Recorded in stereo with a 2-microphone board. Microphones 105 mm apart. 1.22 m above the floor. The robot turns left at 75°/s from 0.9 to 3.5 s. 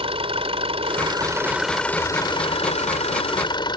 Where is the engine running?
120° right; by 3.8 s 45° left.